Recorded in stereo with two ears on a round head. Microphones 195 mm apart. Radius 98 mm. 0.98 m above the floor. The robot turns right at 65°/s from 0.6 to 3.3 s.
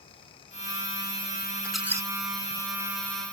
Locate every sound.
1.6 s a squeak: 5° left (ahead or behind); by 2.1 s 20° right (ahead or behind)